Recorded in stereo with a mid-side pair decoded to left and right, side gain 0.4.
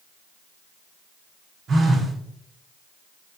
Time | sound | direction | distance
1.7 | a phone buzzing | 65° right | 3.5 m